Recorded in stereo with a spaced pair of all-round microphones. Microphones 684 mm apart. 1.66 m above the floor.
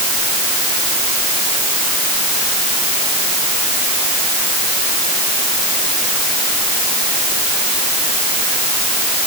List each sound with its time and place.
Only background noise.